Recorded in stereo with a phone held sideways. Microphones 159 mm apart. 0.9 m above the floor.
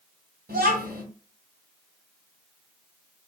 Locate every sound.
0.5 s a child speaking: 85° right, 2.5 m